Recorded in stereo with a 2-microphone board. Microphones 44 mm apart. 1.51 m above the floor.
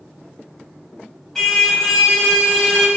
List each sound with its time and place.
1.4 s a car horn: 10° left (ahead or behind), 4 m